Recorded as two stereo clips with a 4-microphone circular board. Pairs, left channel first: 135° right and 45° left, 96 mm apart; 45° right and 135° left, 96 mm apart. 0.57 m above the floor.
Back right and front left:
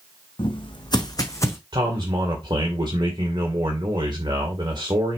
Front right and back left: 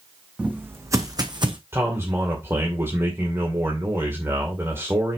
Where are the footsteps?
150° right, 1.4 m; by 1.6 s 165° left, 1.5 m.